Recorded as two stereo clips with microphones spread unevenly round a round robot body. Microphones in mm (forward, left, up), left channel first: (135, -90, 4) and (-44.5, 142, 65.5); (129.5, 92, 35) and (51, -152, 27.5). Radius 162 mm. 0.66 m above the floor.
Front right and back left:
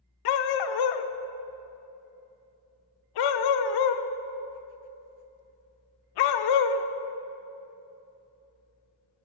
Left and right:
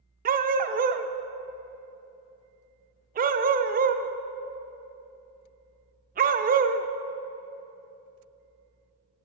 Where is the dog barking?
45° right, 0.5 m.